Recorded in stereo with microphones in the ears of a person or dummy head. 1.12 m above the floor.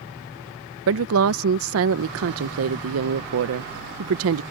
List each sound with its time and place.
0.9 s a woman speaking: 70° right (ahead or behind)